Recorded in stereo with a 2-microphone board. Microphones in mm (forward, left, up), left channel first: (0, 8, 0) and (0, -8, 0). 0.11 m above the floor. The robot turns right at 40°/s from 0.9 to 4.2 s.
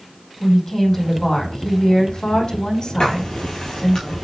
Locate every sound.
0.4 s a woman speaking: 25° left, 5 m; by 4.0 s 150° left, 5 m
3.0 s writing: 80° left, 3 m; by 4.2 s 50° left (ahead or behind), 3 m